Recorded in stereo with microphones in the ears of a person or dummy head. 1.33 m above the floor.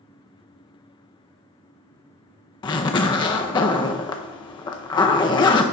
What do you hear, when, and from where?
2.6 s a zipper: 25° left (ahead or behind), 0.5 m